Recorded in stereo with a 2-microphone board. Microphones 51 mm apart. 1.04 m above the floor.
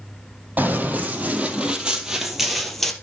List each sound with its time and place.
0.6 s running footsteps: 30° right (ahead or behind), 2.5 m; by 2.9 s 5° left (ahead or behind), 1.9 m